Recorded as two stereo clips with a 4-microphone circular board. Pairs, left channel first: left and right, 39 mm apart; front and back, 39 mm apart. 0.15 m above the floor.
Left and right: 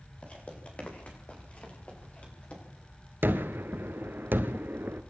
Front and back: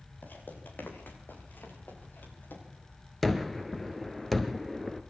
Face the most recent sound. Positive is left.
turn(degrees=-85)